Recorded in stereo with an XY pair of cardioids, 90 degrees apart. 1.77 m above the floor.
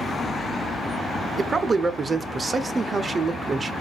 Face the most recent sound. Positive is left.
turn(degrees=-30)